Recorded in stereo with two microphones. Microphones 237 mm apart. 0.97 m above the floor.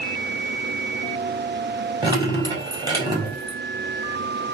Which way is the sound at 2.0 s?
20° right (ahead or behind).